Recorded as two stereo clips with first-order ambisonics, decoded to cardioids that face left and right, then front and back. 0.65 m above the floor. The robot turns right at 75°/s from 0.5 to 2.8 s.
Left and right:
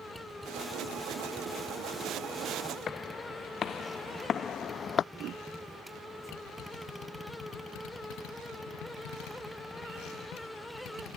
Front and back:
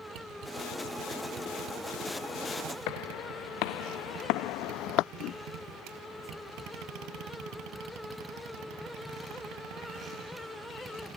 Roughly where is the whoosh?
Ahead right.